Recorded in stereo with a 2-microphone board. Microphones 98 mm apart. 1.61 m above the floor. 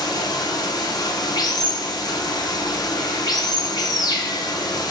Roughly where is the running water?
Left.